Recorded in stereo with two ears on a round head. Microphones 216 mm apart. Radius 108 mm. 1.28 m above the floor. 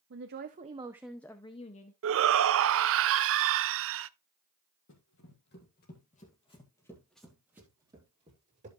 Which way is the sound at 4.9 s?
55° left (ahead or behind).